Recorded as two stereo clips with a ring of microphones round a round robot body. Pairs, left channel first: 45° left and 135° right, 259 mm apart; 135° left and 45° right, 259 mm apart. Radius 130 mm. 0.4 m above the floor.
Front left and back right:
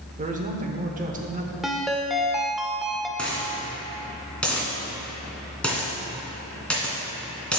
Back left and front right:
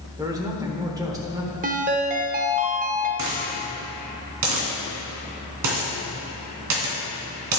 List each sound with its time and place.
0.2 s a man speaking: 110° right, 1.1 m
1.6 s a ringtone: 45° right, 0.8 m
3.2 s a dropped coin: 40° right, 2.5 m